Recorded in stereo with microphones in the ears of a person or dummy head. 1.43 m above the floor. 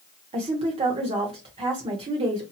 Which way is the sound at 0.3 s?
25° right (ahead or behind).